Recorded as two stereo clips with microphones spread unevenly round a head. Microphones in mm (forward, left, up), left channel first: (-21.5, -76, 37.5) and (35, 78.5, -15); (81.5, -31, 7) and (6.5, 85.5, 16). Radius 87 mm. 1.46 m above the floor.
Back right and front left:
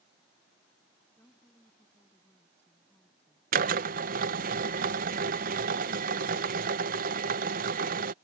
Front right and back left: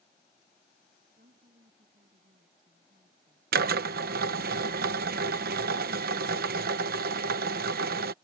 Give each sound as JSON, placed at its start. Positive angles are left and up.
{"t": 1.2, "sound": "a woman speaking", "azimuth_deg": 170}
{"t": 3.5, "sound": "a drill", "azimuth_deg": 110}